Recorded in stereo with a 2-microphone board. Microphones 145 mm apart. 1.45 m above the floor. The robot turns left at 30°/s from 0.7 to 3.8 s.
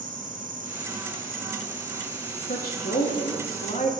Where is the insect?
85° right, 3 m; by 4.0 s straight behind, 3 m.